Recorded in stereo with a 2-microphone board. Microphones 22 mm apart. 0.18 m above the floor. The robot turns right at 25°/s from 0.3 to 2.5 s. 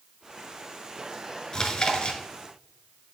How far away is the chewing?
About 1.2 m.